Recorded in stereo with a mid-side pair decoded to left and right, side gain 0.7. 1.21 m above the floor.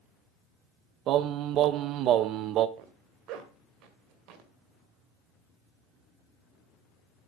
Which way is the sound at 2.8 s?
60° right.